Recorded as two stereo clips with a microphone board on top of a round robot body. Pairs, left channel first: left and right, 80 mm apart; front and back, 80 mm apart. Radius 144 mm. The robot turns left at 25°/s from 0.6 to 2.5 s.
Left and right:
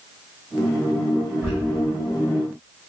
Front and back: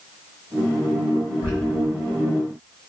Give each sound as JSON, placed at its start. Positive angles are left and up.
{"t": 1.4, "sound": "a squeak", "azimuth_deg": -15, "distance_m": 1.0}